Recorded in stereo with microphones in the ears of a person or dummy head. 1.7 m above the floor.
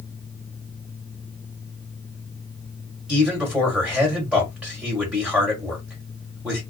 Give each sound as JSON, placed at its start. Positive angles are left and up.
{"t": 3.1, "sound": "a man speaking", "side_deg": -5, "distance_m": 1.5}